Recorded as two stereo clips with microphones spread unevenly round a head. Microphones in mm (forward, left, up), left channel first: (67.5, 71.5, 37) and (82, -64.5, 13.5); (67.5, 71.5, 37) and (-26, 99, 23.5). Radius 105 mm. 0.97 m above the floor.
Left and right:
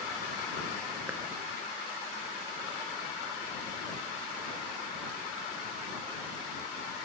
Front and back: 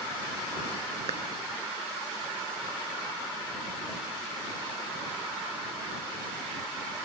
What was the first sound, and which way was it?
A clap, 165° right.